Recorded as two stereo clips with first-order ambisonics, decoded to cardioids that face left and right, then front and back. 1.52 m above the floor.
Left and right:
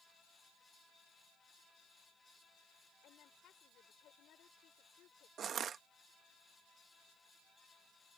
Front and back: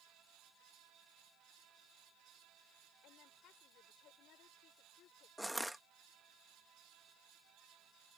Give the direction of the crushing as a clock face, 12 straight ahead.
3 o'clock.